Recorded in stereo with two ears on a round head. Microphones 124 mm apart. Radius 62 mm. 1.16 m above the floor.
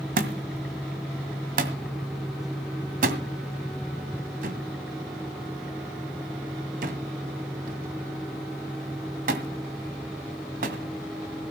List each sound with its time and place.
0.2 s a thud: 65° right (ahead or behind), 1.9 m